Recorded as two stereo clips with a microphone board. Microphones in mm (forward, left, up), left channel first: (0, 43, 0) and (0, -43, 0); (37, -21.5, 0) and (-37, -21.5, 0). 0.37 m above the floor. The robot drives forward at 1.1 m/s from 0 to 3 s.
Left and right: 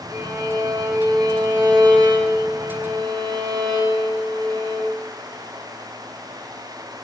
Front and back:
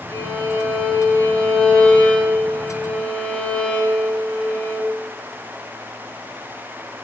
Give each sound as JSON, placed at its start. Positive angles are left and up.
{"t": 0.1, "sound": "a violin", "azimuth_deg": -45, "distance_m": 6.5}